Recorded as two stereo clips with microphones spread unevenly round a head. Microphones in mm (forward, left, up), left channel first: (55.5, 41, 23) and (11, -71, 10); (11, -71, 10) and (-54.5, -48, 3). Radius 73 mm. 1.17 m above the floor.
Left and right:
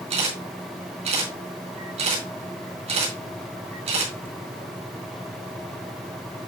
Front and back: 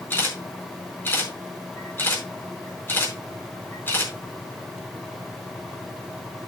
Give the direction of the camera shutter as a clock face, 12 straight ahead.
3 o'clock.